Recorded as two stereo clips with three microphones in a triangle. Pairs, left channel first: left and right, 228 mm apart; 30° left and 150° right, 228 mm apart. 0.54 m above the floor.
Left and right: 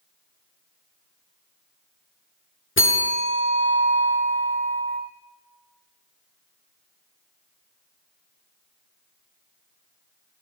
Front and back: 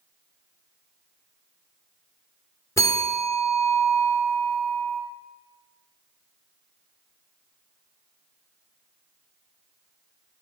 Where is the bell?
105° left, 0.7 m.